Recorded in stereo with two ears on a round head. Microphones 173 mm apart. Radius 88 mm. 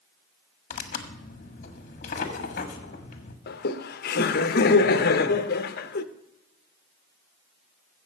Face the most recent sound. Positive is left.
turn(degrees=50)  # may be behind; listen again after turning